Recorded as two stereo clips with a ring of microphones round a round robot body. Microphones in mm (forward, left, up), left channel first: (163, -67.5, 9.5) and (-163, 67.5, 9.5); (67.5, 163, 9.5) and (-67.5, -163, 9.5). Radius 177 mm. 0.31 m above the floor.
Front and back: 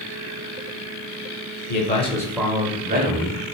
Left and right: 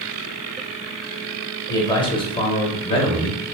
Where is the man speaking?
Straight ahead, 1.0 m; by 3.4 s 135° left, 1.1 m.